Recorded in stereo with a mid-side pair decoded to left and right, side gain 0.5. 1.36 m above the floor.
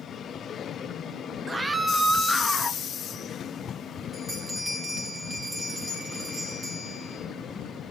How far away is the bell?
About 7 m.